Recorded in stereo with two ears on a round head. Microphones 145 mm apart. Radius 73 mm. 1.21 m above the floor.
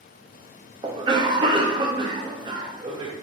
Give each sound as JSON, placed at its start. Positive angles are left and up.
{"t": 0.8, "sound": "a cough", "side_deg": -30, "distance_m": 0.6}